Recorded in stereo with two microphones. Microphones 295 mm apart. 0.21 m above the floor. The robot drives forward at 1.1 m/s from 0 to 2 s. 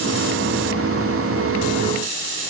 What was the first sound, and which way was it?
Only background noise.